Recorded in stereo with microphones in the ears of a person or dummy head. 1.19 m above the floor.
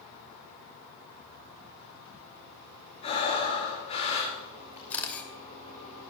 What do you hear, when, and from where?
3.0 s breathing: 35° left (ahead or behind), 5 m
4.9 s a camera shutter: 10° left (ahead or behind), 2.5 m